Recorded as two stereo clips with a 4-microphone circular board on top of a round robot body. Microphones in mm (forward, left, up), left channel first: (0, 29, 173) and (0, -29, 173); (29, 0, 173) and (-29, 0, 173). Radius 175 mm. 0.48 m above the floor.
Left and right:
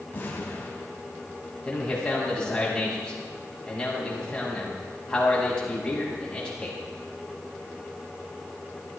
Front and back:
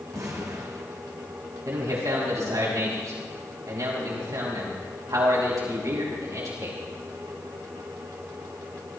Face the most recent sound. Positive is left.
turn(degrees=165)